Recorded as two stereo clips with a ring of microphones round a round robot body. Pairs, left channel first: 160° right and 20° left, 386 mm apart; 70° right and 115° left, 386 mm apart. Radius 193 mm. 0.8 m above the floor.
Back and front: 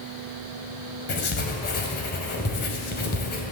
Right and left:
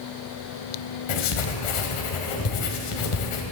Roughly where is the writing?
Right.